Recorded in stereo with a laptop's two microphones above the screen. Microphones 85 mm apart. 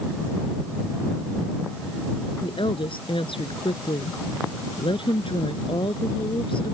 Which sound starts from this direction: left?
A woman speaking, at 2.4 s.